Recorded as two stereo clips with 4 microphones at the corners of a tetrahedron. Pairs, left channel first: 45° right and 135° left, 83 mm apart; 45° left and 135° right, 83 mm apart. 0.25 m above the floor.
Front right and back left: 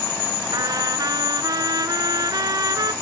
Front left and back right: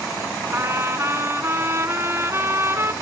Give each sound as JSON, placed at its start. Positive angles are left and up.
{"t": 0.5, "sound": "a trumpet", "azimuth_deg": 170, "distance_m": 1.1}